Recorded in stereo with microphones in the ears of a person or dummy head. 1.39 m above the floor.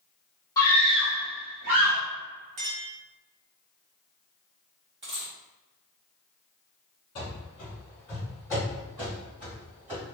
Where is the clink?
35° right (ahead or behind), 0.5 m.